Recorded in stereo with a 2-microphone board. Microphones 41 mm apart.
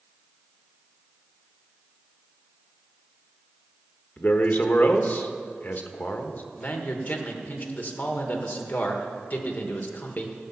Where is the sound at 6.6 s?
45° left (ahead or behind), 1.3 m.